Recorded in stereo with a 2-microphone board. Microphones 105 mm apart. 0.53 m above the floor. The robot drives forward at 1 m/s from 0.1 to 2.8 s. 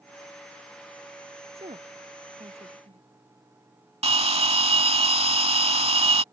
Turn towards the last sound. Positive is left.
turn(degrees=-75)  # may be behind; listen again after turning